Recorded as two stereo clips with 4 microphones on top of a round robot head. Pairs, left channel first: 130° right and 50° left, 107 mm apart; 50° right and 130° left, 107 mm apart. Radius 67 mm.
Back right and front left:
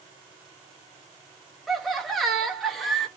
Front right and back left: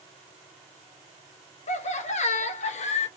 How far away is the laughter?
About 0.8 m.